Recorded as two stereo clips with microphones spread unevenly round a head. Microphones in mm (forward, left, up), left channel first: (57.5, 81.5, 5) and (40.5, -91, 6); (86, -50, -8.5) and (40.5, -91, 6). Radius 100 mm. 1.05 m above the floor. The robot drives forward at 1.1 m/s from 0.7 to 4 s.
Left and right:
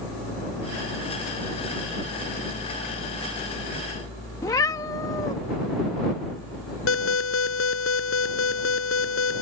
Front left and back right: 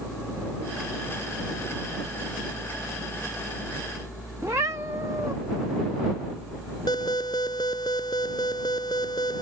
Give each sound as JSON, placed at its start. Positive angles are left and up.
{"t": 4.4, "sound": "a cat meowing", "azimuth_deg": 160}
{"t": 6.9, "sound": "an alarm", "azimuth_deg": 100}